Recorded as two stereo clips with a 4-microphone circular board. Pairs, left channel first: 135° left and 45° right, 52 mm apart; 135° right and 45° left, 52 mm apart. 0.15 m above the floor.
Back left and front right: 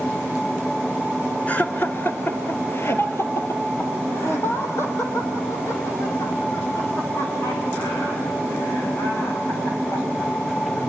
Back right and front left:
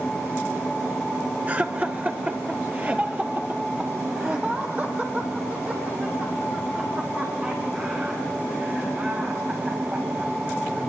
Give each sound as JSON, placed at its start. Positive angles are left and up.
{"t": 1.5, "sound": "laughter", "azimuth_deg": 90, "distance_m": 1.8}